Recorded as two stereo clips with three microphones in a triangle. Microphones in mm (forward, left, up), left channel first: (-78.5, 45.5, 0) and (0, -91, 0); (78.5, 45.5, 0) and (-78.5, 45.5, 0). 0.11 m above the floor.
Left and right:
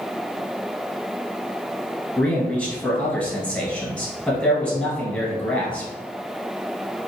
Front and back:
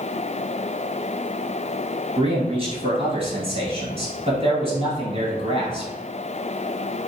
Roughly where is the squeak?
I don't hear a squeak.